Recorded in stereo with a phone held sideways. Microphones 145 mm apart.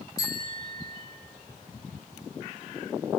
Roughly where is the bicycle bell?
Left.